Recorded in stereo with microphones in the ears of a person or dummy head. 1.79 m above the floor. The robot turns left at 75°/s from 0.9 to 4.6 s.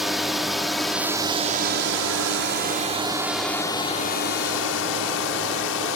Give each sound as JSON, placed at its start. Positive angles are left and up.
{"t": 0.0, "sound": "a drone", "side_deg": 0}